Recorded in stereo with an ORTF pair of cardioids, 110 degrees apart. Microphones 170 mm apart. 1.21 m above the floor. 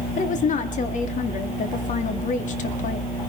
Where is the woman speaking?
50° left, 2 m.